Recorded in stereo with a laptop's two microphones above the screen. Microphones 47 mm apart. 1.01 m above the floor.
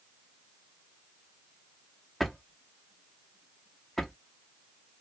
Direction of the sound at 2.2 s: Centre (ahead or behind).